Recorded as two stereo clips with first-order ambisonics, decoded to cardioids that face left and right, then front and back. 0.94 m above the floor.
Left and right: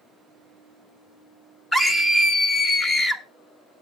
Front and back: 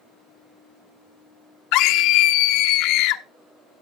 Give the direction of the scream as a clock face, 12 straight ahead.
12 o'clock.